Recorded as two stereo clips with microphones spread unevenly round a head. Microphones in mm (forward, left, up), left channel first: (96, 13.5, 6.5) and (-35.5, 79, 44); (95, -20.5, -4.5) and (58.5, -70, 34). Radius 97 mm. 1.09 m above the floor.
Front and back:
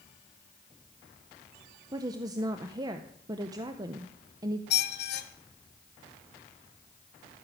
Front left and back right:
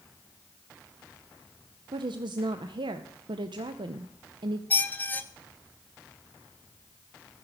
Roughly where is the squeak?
Ahead.